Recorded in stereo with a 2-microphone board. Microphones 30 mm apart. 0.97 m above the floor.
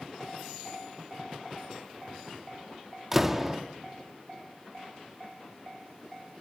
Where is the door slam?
5° right (ahead or behind), 1.2 m.